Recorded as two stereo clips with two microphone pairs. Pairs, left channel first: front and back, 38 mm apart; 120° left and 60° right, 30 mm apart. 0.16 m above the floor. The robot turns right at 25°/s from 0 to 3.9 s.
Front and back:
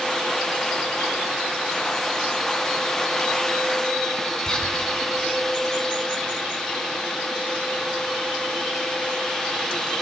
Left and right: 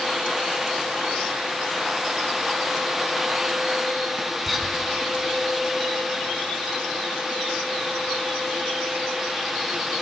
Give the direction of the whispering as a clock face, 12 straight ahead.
11 o'clock.